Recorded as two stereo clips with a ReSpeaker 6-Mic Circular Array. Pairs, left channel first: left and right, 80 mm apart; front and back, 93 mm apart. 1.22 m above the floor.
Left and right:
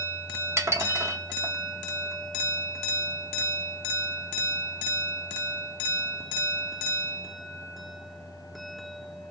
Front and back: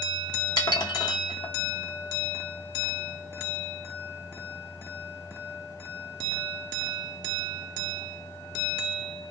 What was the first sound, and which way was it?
Dishes clattering, 35° right.